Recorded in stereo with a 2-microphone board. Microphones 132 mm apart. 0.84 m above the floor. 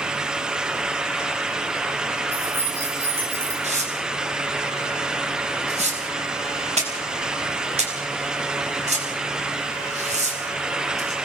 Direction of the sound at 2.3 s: 20° right (ahead or behind).